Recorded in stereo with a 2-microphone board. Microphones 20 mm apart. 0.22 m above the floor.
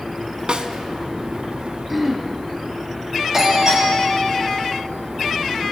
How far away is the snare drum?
About 0.7 m.